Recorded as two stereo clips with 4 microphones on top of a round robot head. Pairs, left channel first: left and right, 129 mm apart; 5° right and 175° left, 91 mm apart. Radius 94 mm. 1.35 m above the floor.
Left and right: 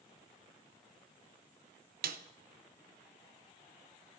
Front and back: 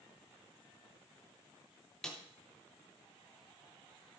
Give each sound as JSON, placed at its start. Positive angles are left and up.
{"t": 2.0, "sound": "a snare drum", "azimuth_deg": -95, "distance_m": 0.6}